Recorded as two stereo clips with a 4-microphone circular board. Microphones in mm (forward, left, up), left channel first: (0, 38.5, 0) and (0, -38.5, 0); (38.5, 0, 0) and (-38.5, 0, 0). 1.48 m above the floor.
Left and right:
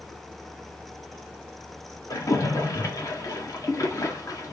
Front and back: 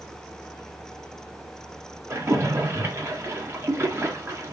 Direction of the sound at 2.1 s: 130° left.